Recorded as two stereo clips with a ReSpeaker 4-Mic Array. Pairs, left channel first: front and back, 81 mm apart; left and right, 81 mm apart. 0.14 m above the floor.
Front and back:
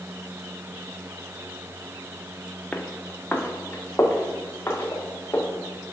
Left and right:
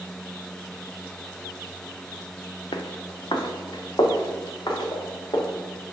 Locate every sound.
2.7 s footsteps: 75° left, 0.9 m; by 5.4 s 60° left, 2 m